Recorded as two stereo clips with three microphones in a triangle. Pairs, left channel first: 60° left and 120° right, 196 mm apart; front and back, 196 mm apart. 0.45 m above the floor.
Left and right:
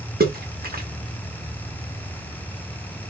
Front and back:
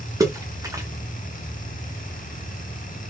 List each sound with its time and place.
0.2 s a splash: 115° right, 0.7 m